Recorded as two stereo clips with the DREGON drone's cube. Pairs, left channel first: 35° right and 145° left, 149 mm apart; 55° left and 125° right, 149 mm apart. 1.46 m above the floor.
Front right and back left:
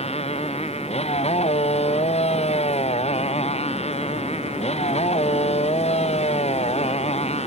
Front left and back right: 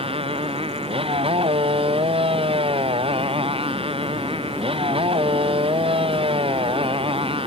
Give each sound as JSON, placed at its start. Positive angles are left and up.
{"t": 0.0, "sound": "a motorcycle", "azimuth_deg": -75}